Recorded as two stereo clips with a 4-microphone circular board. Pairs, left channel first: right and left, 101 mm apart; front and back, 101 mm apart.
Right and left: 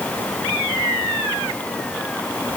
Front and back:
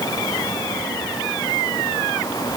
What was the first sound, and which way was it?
Only background noise.